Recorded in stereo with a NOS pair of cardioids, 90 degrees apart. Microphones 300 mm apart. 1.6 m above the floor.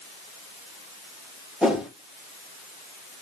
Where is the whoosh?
Straight ahead, 1.5 m.